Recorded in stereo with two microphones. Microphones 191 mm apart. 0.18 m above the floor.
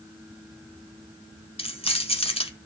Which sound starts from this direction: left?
Keys jangling, at 1.6 s.